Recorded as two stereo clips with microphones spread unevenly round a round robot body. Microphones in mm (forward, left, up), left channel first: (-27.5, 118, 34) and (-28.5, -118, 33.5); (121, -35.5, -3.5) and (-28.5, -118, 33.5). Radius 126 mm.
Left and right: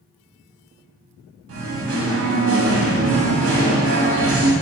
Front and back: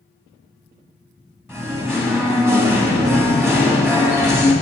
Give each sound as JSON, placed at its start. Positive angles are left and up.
{"t": 1.5, "sound": "singing", "azimuth_deg": -70, "distance_m": 1.7}